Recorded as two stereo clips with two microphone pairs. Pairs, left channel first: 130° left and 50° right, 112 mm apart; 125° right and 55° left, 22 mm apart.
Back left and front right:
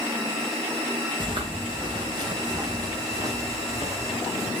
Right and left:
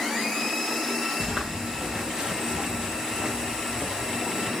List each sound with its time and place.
1.2 s footsteps: 5° right, 4 m; by 4.5 s 15° left, 5 m